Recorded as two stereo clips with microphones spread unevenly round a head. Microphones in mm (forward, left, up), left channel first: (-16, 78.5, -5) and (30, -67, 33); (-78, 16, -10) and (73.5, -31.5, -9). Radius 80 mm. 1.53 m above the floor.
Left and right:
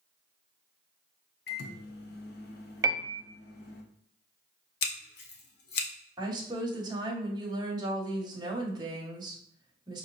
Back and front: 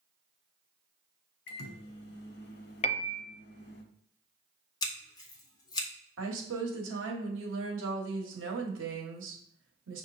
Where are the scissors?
105° left, 0.8 m.